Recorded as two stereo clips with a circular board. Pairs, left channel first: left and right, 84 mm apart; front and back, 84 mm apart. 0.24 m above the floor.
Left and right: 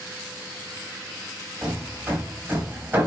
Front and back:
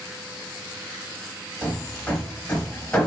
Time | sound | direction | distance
1.6 | hammering | 60° right | 0.9 m